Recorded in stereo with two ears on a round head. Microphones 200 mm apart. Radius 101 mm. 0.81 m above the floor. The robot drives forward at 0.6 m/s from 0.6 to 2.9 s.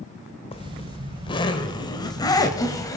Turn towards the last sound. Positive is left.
turn(degrees=15)  # may be behind; listen again after turning